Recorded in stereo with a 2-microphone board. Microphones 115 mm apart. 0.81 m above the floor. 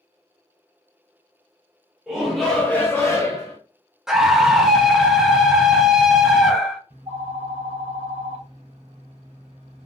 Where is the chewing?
I don't hear chewing.